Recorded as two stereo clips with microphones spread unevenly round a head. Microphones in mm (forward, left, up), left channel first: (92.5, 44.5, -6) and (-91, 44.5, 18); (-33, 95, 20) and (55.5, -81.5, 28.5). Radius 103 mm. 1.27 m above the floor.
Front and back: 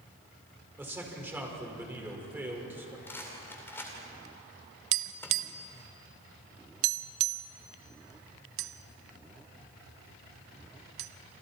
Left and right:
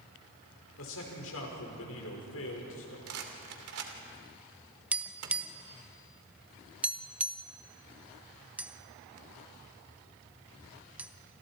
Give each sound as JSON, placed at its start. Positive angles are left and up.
{"t": 0.8, "sound": "a man speaking", "azimuth_deg": 100, "distance_m": 5.5}
{"t": 3.1, "sound": "a rattle", "azimuth_deg": -85, "distance_m": 2.5}
{"t": 4.9, "sound": "tapping", "azimuth_deg": -145, "distance_m": 0.6}